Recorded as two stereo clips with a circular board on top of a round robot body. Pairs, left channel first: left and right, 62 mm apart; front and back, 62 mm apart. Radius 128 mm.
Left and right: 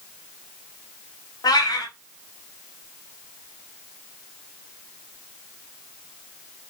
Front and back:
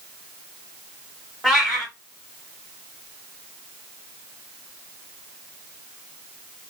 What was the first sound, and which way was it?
A cat meowing, 95° left.